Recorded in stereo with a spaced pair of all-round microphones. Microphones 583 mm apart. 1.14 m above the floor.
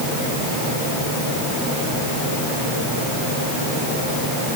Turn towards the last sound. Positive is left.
No sound to turn to.